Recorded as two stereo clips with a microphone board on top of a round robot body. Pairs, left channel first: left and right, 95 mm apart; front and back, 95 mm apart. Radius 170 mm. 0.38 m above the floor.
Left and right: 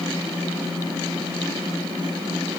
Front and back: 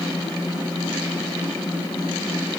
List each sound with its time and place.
Only background noise.